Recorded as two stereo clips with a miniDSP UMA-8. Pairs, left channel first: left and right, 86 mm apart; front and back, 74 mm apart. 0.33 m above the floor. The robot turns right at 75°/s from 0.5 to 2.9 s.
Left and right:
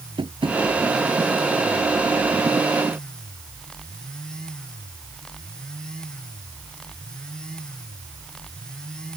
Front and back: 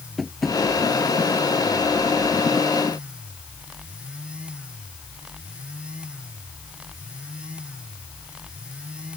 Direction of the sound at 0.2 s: 90° right.